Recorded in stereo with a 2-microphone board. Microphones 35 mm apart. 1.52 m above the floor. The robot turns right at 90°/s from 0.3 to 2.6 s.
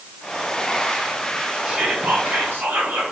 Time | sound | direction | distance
1.6 | whispering | 150° right | 0.9 m